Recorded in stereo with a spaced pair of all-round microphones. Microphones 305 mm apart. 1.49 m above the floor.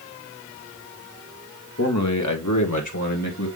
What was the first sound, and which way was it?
A man speaking, 55° left (ahead or behind).